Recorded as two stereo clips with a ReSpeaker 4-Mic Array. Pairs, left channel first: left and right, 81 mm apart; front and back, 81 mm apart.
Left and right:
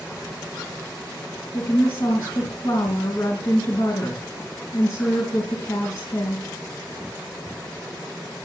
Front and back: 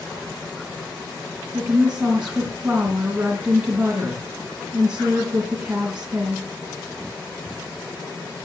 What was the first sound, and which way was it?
A woman speaking, 110° left.